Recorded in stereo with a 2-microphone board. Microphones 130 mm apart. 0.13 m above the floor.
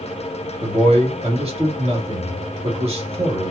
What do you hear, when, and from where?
0.6 s a man speaking: 55° right (ahead or behind), 2.5 m